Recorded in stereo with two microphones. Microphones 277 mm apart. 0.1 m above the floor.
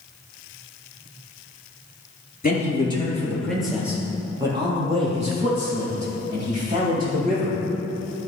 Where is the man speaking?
30° left (ahead or behind), 2 m; by 7.6 s 30° right (ahead or behind), 6.5 m.